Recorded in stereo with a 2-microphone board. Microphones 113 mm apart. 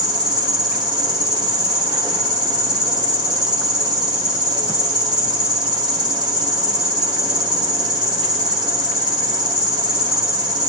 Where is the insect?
40° right (ahead or behind), 1.2 m.